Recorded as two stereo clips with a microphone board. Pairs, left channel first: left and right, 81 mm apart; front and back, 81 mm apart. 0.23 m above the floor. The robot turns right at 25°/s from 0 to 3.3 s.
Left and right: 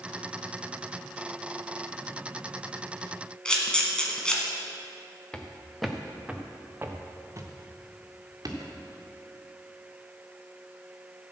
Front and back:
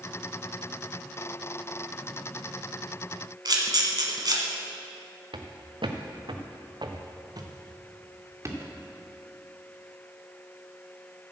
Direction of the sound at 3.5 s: 165° left.